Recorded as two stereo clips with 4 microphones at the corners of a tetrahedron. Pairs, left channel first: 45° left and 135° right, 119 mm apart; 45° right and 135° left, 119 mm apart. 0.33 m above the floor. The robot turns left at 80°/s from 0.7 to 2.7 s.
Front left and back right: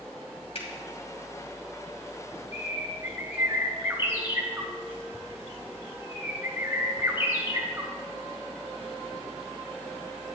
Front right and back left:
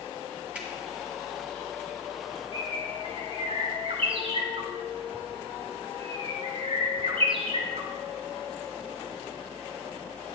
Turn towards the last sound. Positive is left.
turn(degrees=155)